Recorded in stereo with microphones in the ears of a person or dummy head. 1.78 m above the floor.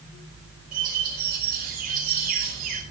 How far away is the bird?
About 6 m.